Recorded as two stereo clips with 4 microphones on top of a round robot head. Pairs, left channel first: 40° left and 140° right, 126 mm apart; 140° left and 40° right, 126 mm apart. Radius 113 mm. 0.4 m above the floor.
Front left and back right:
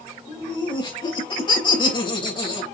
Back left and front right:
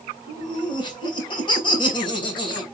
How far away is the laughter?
About 3 m.